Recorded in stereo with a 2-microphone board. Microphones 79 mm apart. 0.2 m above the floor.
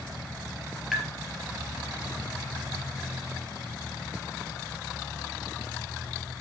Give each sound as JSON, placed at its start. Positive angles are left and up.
{"t": 0.9, "sound": "tapping", "side_deg": -5, "distance_m": 3.5}